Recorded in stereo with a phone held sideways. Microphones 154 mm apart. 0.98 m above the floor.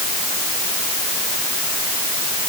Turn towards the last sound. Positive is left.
No sound to turn to.